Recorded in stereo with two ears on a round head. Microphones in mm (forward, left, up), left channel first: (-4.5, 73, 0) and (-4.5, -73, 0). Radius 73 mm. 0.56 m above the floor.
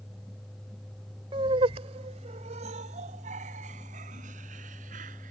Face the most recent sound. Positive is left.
turn(degrees=-50)  # may be behind; listen again after turning